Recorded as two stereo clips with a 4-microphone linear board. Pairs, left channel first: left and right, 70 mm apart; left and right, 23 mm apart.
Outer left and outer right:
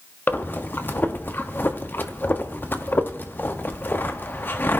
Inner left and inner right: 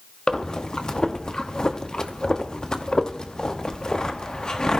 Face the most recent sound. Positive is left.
turn(degrees=30)  # may be behind; listen again after turning